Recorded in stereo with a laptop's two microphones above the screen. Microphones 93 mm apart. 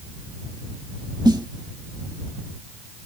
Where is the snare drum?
50° right (ahead or behind).